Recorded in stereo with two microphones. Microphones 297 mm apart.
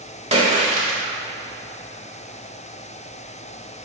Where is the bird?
I don't hear a bird.